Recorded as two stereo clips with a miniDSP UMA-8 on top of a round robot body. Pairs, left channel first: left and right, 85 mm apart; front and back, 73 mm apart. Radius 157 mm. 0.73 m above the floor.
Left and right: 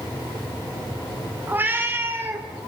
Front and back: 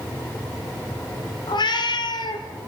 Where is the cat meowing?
20° right, 2 m; by 2.5 s 25° right, 1.5 m.